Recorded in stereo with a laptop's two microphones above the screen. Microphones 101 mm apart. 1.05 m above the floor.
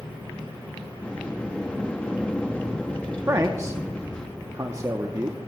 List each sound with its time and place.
1.0 s a sliding door: 10° left (ahead or behind), 0.6 m
3.3 s a man speaking: 30° right (ahead or behind), 0.8 m